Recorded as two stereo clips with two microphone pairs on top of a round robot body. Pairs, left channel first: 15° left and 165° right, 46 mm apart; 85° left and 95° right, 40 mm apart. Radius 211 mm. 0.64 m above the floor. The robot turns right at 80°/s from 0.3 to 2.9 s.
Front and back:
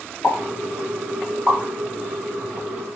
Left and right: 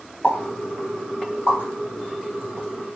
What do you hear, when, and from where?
0.2 s a pop: 25° left, 1.4 m; by 3.0 s 125° right, 1.4 m